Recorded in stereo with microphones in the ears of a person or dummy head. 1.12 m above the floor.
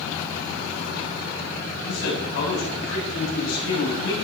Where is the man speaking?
85° left, 7.5 m.